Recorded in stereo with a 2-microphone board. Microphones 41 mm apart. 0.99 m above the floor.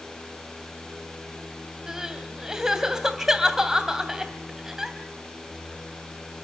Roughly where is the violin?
I don't hear a violin.